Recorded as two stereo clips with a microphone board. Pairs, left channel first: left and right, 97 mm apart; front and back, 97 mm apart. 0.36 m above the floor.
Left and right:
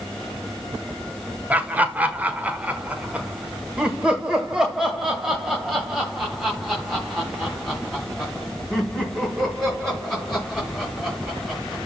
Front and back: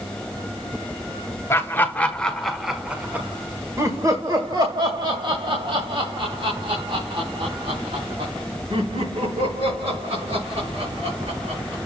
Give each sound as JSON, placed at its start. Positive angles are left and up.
{"t": 1.5, "sound": "laughter", "azimuth_deg": -35, "distance_m": 1.5}